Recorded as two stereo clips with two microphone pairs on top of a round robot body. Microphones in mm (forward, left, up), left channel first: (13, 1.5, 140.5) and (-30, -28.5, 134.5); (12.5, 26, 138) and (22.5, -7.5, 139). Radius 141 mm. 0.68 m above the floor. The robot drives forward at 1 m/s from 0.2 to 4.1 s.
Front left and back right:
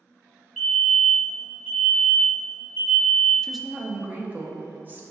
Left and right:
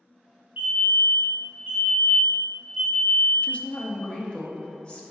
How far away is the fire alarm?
About 2.0 m.